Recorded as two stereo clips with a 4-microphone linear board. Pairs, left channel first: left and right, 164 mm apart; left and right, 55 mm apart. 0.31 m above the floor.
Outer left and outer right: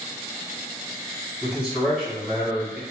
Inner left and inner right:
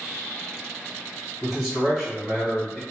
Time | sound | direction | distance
1.4 | a man speaking | 5° right (ahead or behind) | 1.4 m